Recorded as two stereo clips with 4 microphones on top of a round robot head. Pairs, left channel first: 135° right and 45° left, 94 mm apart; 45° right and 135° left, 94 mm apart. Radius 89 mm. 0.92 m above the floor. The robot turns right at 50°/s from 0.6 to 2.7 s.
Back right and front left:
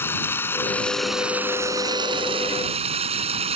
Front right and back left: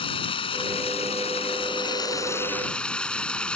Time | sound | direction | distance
0.0 | running water | 70° right | ?